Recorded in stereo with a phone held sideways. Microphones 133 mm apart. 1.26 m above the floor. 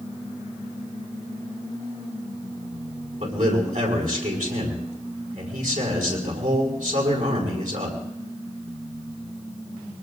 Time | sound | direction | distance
3.2 | a man speaking | 75° right (ahead or behind) | 4.5 m